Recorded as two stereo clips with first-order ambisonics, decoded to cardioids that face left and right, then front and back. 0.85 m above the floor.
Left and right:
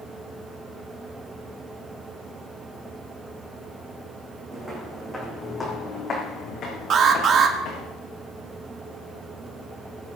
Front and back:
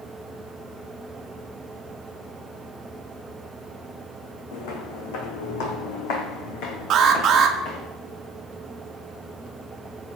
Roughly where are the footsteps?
Ahead.